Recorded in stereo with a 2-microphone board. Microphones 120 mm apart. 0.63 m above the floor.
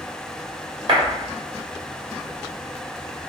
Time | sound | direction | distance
0.9 | a clap | 50° right (ahead or behind) | 1.5 m